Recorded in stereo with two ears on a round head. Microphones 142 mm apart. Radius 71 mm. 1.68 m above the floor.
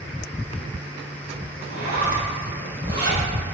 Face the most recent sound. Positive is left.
turn(degrees=-55)  # may be behind; listen again after turning